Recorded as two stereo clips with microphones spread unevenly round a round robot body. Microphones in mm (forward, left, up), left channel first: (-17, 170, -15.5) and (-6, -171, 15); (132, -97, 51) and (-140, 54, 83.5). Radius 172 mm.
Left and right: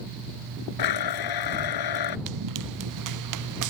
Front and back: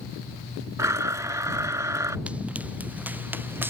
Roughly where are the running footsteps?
Behind right.